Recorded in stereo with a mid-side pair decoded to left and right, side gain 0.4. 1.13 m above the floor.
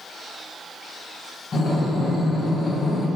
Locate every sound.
1.5 s breathing: 45° left, 1.0 m